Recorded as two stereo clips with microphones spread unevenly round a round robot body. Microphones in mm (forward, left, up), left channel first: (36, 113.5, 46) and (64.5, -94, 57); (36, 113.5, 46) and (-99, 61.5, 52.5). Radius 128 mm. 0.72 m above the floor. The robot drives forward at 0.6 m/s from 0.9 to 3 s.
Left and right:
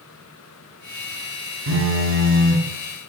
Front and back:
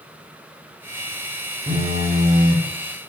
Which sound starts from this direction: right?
A phone buzzing, at 1.7 s.